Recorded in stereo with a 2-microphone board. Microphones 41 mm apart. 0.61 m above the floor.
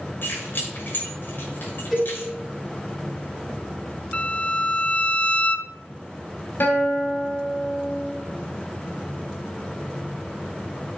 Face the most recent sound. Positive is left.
turn(degrees=55)  # may be behind; listen again after turning